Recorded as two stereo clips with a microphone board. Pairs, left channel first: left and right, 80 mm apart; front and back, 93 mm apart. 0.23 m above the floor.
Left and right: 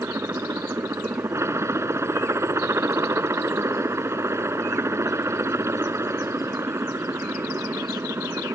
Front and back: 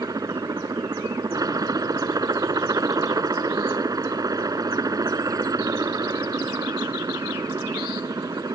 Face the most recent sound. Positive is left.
turn(degrees=-140)